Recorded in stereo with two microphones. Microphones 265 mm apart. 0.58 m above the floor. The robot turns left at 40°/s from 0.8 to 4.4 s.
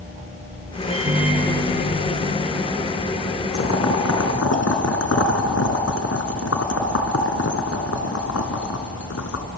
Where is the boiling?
65° left (ahead or behind), 1.7 m; by 9.4 s 75° left (ahead or behind), 1.7 m.